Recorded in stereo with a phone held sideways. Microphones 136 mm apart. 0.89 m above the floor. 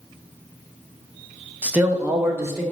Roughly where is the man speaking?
Centre.